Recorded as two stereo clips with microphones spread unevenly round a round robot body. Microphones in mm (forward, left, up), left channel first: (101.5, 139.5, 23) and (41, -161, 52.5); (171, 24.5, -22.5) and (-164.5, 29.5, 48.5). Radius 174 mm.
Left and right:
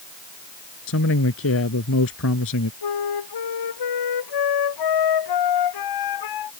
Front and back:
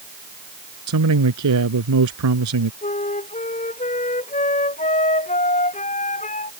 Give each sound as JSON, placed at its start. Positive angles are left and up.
{"t": 0.9, "sound": "a man speaking", "azimuth_deg": 135}
{"t": 2.8, "sound": "a flute", "azimuth_deg": 70}